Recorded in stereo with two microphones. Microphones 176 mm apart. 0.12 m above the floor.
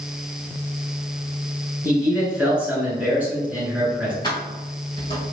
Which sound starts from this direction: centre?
A man speaking, at 1.8 s.